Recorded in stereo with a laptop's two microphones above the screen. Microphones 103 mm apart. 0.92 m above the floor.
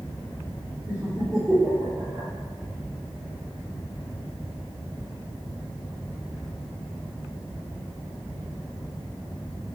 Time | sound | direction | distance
0.9 | laughter | 15° right (ahead or behind) | 1.6 m